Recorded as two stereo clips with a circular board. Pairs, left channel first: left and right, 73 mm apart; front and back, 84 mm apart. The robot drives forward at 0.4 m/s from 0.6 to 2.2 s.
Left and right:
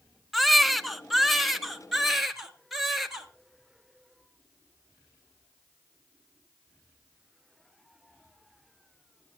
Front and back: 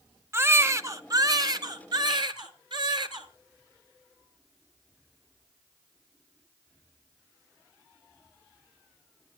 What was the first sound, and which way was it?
A baby crying, straight behind.